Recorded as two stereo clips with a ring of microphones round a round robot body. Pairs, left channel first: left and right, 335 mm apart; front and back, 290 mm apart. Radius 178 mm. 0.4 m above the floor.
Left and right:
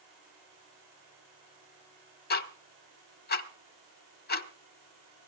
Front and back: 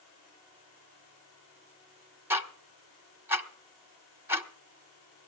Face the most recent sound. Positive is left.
turn(degrees=105)